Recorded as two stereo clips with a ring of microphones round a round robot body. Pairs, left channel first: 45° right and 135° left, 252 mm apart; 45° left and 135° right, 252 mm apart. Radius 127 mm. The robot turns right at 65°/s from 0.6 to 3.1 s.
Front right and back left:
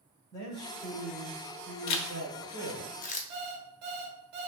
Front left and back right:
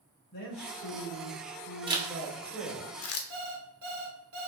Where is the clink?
No clink in this recording.